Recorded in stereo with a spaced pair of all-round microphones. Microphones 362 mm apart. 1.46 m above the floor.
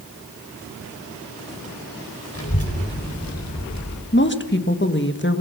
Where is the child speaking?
40° left (ahead or behind), 6 m; by 4.0 s 50° left (ahead or behind), 4.5 m.